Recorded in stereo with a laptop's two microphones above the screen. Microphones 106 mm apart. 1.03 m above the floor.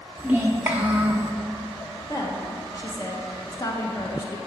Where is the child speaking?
20° right (ahead or behind), 1.6 m.